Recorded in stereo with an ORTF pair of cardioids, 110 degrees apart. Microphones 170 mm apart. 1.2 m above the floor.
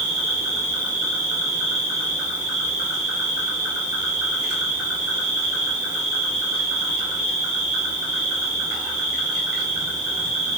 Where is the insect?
25° right, 1.7 m.